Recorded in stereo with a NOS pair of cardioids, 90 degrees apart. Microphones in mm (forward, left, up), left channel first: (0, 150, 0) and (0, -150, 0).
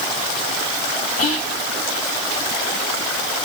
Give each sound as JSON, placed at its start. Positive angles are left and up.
{"t": 1.2, "sound": "whispering", "azimuth_deg": 50, "distance_m": 0.9}